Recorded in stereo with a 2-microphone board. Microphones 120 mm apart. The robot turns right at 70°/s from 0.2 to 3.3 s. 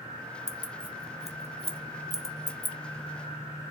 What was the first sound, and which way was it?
Keys jangling, 25° right (ahead or behind).